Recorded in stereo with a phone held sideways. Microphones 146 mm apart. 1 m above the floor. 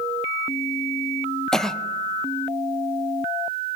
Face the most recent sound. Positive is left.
turn(degrees=5)  # may be behind; listen again after turning